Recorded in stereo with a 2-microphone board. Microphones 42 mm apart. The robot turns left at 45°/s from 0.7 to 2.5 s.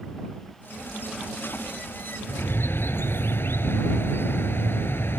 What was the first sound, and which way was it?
A bird, 65° left (ahead or behind).